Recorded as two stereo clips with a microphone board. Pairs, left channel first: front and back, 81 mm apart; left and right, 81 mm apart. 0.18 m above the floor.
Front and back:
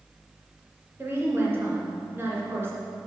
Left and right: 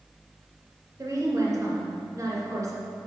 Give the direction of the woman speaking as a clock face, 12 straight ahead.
4 o'clock.